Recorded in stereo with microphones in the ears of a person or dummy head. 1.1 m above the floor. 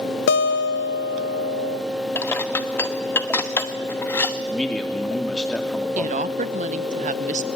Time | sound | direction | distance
0.3 | a guitar | 60° left (ahead or behind) | 0.5 m
2.1 | dishes clattering | 15° left (ahead or behind) | 1.0 m
4.5 | a man speaking | 5° left (ahead or behind) | 2.5 m
6.0 | a woman speaking | 35° right (ahead or behind) | 0.8 m